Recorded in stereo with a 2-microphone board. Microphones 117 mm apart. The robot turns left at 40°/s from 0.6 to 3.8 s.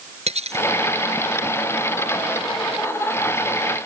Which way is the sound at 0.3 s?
65° right (ahead or behind).